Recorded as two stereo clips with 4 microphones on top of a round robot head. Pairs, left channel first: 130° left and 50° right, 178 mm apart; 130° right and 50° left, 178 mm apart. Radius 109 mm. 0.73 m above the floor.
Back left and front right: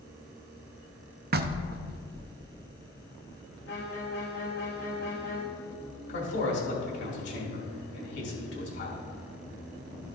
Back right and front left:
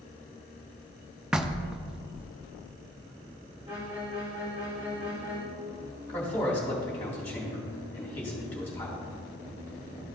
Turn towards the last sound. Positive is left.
turn(degrees=150)